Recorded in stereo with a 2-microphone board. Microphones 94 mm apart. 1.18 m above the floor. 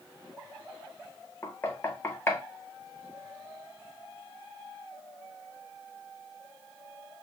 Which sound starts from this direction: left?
Knocking, at 1.4 s.